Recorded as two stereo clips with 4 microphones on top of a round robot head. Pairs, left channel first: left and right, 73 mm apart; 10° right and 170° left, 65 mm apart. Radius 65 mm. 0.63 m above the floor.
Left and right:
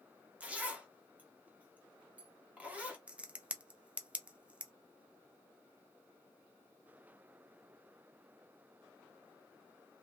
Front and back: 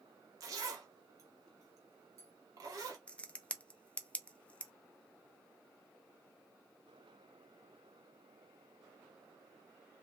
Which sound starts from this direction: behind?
A zipper, at 0.4 s.